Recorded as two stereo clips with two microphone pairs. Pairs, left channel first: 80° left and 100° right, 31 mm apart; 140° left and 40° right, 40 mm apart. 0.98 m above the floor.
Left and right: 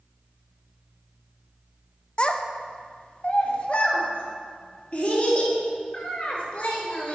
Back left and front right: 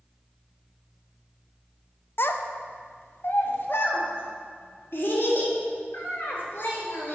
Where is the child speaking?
130° left, 0.5 m; by 7.2 s 115° left, 3 m.